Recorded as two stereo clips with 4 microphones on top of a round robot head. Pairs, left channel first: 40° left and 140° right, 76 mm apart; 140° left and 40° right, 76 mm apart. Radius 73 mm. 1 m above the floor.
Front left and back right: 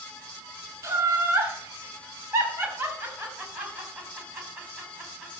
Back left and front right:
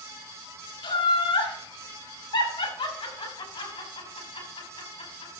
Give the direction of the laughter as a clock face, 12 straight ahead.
7 o'clock.